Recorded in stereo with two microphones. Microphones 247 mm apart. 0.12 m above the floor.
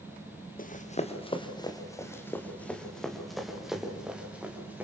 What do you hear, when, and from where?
0.6 s running footsteps: 35° left (ahead or behind), 1.9 m; by 4.8 s 5° right (ahead or behind), 5 m